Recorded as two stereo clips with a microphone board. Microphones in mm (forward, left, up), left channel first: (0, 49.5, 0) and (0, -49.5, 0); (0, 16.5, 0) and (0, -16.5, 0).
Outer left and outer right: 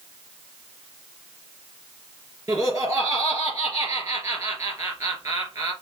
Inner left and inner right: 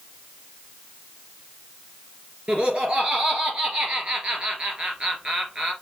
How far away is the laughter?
About 2.5 m.